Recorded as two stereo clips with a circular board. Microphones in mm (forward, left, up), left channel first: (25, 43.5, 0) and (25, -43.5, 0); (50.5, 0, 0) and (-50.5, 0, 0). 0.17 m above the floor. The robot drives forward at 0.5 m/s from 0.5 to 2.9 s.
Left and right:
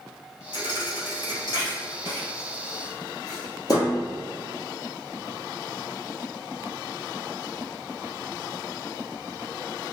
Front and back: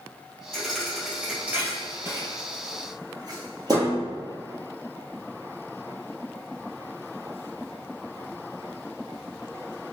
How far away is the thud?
About 1.2 m.